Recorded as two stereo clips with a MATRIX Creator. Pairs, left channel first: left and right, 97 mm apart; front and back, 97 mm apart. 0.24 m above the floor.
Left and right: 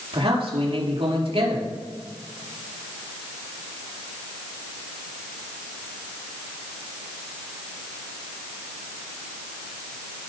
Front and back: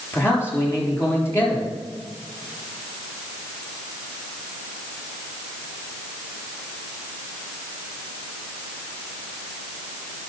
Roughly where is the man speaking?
Ahead right.